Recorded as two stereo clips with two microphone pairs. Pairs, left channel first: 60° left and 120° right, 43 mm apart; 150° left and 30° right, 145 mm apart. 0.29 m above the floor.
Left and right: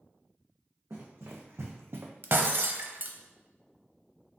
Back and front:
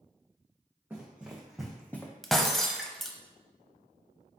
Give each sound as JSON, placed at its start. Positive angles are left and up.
{"t": 0.9, "sound": "running footsteps", "azimuth_deg": -110, "distance_m": 1.3}
{"t": 2.2, "sound": "breaking glass", "azimuth_deg": -130, "distance_m": 0.5}